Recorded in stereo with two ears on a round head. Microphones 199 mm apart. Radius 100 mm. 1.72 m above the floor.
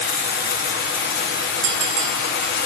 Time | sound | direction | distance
0.0 | running water | 45° left (ahead or behind) | 0.8 m
1.6 | a bell | 55° right (ahead or behind) | 0.7 m